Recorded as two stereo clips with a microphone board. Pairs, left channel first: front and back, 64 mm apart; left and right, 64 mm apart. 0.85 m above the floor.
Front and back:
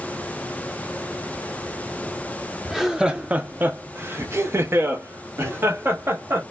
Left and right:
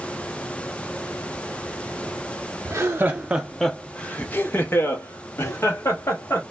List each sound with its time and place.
2.6 s laughter: 90° right, 0.6 m; by 6.4 s 130° left, 1.8 m